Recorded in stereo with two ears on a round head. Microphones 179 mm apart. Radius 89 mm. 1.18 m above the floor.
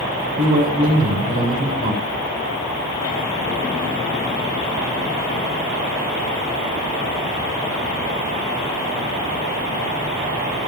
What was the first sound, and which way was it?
A man speaking, 45° right (ahead or behind).